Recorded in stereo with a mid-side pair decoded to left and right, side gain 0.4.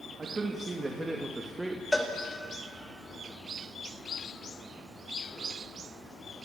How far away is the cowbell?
About 2.5 m.